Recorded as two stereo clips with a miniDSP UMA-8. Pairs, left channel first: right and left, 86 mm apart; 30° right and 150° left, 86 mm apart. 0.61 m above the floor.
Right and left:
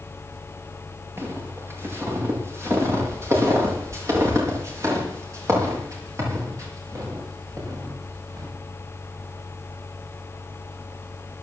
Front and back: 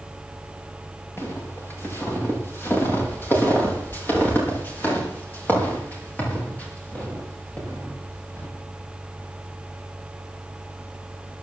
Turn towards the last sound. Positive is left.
turn(degrees=40)